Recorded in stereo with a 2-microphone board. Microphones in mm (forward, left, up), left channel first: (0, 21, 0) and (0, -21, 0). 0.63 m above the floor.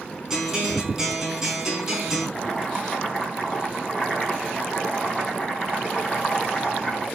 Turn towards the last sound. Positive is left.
turn(degrees=0)  # may be behind; listen again after turning